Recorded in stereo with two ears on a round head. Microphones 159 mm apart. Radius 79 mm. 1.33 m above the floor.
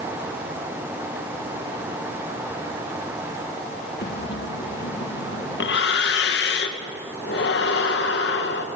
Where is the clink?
No clink in this recording.